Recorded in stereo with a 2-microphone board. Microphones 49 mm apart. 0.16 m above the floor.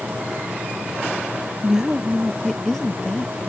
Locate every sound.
1.6 s a woman speaking: 15° right (ahead or behind); by 3.5 s 20° left (ahead or behind)